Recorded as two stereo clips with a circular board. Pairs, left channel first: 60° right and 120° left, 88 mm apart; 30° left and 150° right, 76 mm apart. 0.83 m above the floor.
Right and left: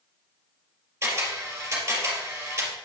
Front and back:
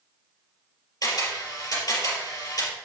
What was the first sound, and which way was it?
A camera shutter, 65° left.